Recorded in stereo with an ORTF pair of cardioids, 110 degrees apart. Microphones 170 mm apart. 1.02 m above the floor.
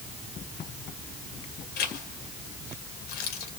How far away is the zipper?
About 2.5 m.